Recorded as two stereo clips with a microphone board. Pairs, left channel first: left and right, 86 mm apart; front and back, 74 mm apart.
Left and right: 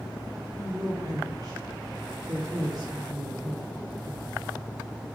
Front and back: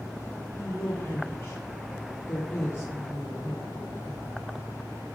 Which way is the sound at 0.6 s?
65° right.